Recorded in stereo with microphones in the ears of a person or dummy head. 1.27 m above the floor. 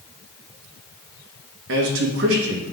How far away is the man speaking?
About 0.9 m.